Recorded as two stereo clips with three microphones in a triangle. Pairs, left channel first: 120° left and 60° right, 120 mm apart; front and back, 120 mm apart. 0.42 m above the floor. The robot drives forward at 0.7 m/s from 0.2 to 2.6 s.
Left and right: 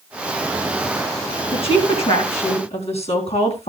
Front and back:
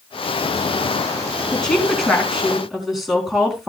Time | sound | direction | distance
1.5 | a woman speaking | 85° left | 4.5 m